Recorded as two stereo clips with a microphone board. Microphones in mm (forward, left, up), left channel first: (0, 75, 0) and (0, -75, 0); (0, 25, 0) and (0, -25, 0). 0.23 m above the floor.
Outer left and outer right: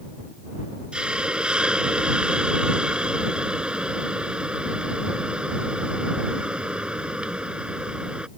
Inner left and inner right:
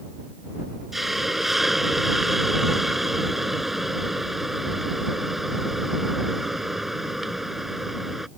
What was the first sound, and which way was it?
A hiss, 5° right (ahead or behind).